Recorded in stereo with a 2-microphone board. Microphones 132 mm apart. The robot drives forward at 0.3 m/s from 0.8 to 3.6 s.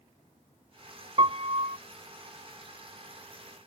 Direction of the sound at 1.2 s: 45° right (ahead or behind).